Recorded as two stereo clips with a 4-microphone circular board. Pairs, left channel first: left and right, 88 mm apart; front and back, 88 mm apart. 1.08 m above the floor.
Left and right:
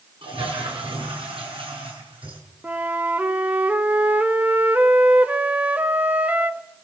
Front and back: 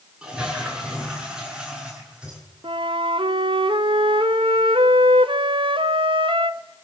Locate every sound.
0.2 s a toilet flushing: 100° right, 7 m
2.6 s a flute: 165° right, 1.1 m